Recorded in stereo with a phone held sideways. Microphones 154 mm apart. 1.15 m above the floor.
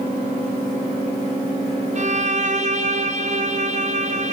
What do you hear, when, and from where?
1.9 s a violin: 50° right (ahead or behind), 0.8 m